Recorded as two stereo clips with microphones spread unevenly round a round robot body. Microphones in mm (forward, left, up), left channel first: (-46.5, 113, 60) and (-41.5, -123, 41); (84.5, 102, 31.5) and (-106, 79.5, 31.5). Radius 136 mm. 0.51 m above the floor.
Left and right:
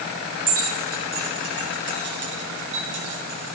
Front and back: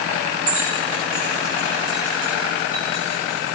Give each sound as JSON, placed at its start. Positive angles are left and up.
{"t": 0.5, "sound": "keys jangling", "azimuth_deg": -145, "distance_m": 6.0}